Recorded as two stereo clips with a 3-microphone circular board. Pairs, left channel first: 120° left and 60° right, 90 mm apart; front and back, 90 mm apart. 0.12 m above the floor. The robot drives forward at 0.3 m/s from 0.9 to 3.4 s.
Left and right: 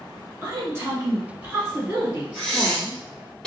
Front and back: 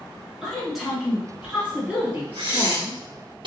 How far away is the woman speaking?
About 1.6 m.